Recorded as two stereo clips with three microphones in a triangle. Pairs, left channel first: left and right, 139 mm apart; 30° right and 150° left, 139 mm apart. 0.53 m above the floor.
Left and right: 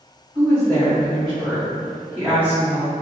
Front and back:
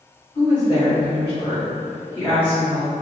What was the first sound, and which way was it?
A woman speaking, 5° left.